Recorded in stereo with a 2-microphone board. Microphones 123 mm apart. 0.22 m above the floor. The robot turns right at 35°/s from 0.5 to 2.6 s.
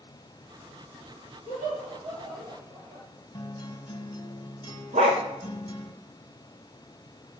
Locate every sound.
1.5 s laughter: 75° right (ahead or behind), 5 m; by 3.1 s 50° right (ahead or behind), 5 m
3.3 s a guitar: 35° left (ahead or behind), 1.6 m
4.9 s a dog barking: 65° right (ahead or behind), 5 m